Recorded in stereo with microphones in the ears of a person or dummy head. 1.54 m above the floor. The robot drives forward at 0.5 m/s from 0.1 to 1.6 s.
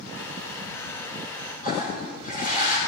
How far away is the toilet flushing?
About 6 m.